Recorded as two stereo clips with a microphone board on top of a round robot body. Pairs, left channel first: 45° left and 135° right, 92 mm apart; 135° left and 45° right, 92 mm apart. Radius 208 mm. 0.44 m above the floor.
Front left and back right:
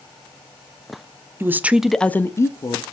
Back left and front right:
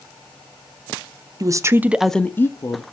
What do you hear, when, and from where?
1.4 s a woman speaking: 80° right, 0.9 m; by 2.8 s 85° left, 1.1 m